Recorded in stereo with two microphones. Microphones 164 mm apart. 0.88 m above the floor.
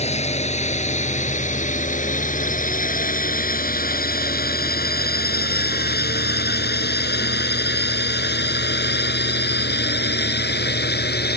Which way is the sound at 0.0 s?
40° left (ahead or behind).